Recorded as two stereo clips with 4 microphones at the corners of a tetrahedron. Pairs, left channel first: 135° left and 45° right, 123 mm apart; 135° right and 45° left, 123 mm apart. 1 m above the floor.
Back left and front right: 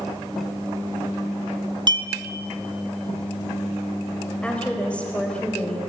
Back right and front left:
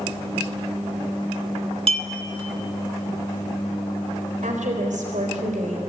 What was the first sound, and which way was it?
A clink, 5° left.